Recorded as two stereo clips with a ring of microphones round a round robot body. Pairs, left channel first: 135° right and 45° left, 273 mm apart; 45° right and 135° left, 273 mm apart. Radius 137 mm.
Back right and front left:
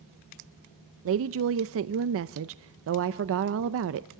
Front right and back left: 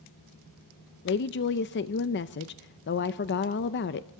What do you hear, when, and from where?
1.1 s a woman speaking: 5° left, 0.5 m